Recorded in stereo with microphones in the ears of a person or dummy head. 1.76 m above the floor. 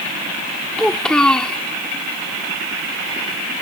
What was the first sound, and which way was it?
A child speaking, 5° left (ahead or behind).